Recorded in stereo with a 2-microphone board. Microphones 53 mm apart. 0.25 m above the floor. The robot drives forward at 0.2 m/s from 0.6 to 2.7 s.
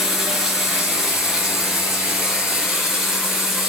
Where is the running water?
5° right (ahead or behind), 3.5 m.